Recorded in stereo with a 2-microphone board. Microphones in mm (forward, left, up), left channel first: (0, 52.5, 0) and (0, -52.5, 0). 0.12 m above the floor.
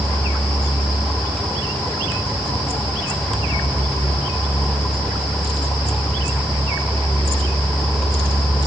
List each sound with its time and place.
Only background noise.